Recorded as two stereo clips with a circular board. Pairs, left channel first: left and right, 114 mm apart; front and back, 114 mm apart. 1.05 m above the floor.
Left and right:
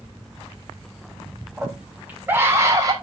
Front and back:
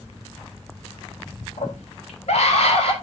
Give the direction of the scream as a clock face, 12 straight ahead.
12 o'clock.